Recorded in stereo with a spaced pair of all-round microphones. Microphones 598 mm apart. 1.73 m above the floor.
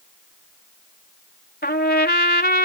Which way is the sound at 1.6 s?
15° left (ahead or behind).